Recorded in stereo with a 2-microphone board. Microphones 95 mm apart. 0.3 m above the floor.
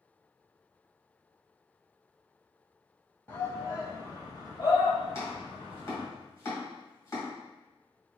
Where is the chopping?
30° left (ahead or behind), 2 m.